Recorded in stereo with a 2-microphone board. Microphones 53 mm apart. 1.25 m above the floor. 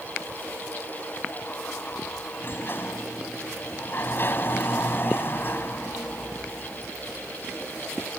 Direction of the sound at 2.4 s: 45° left (ahead or behind).